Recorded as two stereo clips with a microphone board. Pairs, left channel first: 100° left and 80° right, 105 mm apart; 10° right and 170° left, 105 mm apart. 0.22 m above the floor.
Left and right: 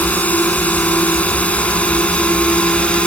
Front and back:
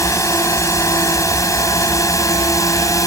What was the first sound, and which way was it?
A drone, 30° left.